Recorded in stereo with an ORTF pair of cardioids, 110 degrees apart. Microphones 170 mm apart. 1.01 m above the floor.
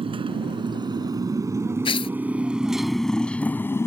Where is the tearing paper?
30° left.